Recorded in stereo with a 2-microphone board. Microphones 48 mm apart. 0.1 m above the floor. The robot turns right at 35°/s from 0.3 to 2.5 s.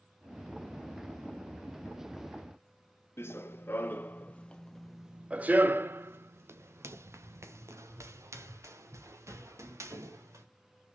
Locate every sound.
3.2 s running footsteps: 55° left (ahead or behind), 1.2 m; by 10.4 s 85° right, 3 m